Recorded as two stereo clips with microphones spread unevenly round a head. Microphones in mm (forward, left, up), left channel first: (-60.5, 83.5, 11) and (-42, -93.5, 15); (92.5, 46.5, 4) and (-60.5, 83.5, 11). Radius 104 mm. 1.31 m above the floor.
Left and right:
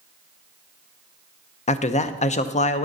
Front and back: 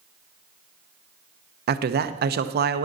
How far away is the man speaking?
About 0.7 m.